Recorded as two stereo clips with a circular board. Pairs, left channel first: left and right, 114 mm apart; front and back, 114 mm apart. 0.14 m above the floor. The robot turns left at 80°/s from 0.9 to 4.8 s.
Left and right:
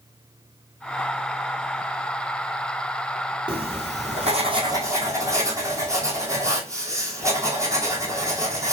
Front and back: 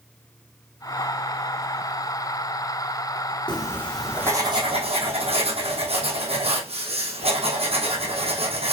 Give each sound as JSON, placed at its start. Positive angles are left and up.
{"t": 3.5, "sound": "writing", "azimuth_deg": -45, "distance_m": 1.9}